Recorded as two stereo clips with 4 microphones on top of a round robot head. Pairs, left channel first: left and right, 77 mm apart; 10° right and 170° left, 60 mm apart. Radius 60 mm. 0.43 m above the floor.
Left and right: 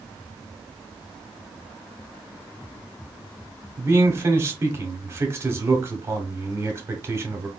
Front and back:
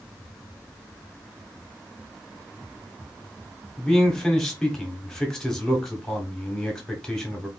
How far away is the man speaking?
About 1.1 m.